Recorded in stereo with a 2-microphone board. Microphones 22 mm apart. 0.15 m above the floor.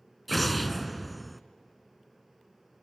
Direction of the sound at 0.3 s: 5° left (ahead or behind).